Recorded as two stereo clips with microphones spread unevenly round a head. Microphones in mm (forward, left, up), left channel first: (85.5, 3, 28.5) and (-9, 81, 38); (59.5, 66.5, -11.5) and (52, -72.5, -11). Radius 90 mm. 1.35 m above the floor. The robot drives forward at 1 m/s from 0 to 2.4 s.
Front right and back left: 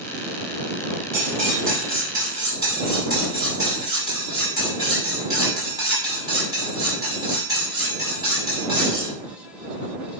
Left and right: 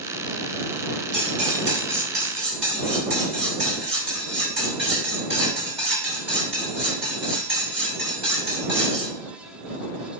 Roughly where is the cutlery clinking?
Behind right.